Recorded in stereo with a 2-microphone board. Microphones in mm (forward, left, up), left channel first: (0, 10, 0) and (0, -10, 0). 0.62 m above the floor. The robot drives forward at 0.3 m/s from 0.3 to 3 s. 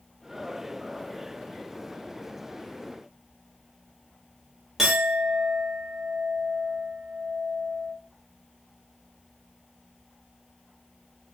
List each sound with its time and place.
4.8 s a clink: 10° right (ahead or behind), 1.0 m